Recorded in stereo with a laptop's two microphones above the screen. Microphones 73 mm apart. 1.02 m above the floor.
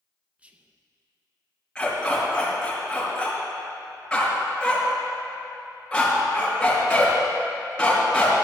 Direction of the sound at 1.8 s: 15° left (ahead or behind).